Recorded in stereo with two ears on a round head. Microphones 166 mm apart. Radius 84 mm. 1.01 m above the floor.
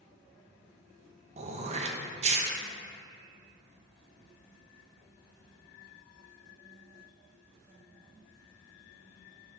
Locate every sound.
1.4 s throat clearing: 40° right (ahead or behind), 0.8 m